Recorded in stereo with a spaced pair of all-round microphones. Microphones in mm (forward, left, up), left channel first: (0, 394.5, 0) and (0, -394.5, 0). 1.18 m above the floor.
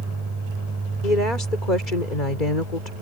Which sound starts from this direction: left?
A woman speaking, at 1.0 s.